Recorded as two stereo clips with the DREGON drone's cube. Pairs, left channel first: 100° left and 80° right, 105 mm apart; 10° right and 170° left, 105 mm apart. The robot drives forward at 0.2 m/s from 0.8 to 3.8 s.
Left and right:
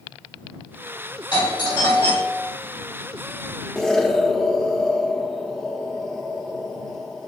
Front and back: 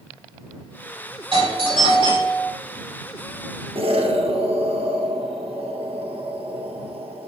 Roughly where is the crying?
No crying in this recording.